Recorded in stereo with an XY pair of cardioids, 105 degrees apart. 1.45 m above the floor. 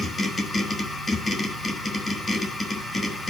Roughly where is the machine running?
Ahead left.